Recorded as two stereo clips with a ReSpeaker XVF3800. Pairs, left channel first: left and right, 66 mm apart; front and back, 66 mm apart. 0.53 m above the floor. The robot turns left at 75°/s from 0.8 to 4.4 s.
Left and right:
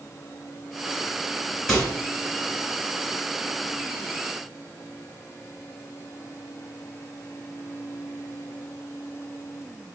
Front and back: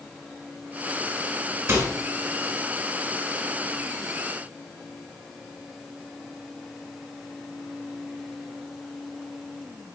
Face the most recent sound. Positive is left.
turn(degrees=-35)